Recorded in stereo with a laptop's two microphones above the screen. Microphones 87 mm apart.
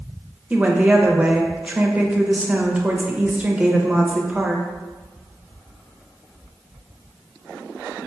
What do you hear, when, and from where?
0.5 s a woman speaking: 15° right (ahead or behind), 0.6 m